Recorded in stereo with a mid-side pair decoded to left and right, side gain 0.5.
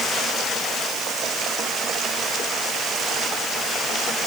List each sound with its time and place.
Only background noise.